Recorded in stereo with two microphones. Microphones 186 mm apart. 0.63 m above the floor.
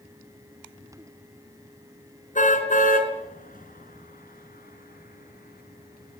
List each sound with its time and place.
2.4 s a car horn: 45° left (ahead or behind), 4 m; by 6.2 s 55° left (ahead or behind), 6.5 m